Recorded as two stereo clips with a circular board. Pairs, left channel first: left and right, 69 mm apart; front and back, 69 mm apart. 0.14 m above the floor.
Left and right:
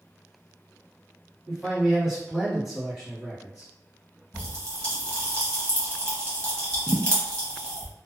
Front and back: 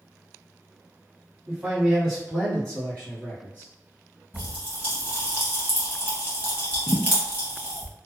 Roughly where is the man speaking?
Behind.